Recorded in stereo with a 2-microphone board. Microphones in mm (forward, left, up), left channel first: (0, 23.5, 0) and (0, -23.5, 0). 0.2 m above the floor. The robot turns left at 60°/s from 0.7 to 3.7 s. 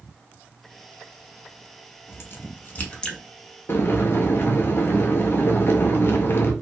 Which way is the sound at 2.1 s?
60° left (ahead or behind).